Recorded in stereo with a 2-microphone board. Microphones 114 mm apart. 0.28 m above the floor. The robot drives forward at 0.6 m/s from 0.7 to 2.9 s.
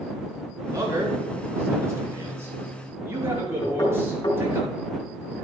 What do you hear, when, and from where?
0.7 s a man speaking: 30° right (ahead or behind), 3.5 m; by 4.6 s 20° right (ahead or behind), 4.5 m
3.6 s knocking: 45° left (ahead or behind), 2.5 m